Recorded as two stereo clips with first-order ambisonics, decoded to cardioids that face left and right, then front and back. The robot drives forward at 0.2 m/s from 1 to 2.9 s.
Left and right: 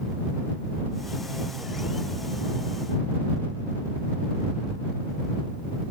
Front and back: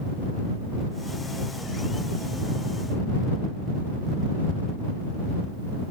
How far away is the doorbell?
No doorbell in this recording.